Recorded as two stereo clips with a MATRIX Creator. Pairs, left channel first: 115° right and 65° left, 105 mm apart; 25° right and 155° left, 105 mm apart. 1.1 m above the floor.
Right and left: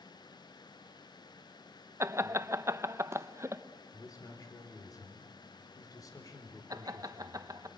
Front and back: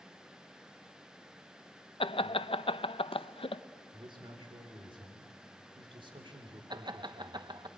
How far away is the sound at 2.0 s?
About 0.7 m.